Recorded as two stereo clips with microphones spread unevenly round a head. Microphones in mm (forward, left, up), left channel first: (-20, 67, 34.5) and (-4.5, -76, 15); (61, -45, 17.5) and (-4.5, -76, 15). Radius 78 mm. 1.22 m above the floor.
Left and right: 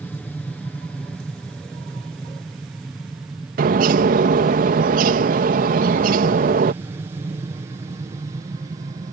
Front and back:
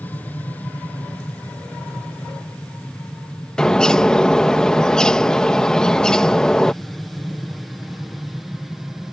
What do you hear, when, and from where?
0.0 s an aircraft: 15° left; by 9.1 s 75° right
3.6 s a bird: 55° right